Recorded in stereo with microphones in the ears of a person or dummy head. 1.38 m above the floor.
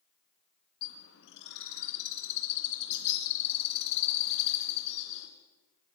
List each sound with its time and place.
0.8 s a bird: 65° left (ahead or behind), 2.5 m